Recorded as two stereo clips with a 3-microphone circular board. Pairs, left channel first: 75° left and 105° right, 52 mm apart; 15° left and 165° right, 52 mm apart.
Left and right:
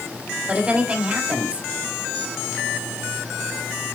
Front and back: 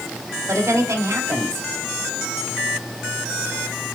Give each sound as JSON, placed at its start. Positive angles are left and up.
{"t": 0.5, "sound": "a woman speaking", "azimuth_deg": -160, "distance_m": 2.0}